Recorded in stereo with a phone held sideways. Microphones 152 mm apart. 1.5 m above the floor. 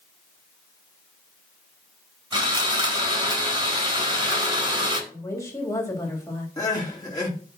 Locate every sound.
2.3 s sawing: 35° right (ahead or behind), 3.5 m
5.1 s a woman speaking: 20° left (ahead or behind), 3.5 m
6.6 s crying: 25° left (ahead or behind), 3 m